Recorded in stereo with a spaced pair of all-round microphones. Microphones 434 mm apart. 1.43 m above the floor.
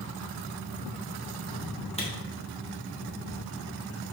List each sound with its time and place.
2.0 s a camera shutter: 15° left (ahead or behind), 1.4 m